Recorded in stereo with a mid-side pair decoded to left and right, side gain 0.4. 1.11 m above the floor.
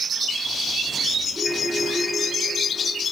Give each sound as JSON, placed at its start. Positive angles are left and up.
{"t": 1.3, "sound": "a ringtone", "azimuth_deg": -30, "distance_m": 8.0}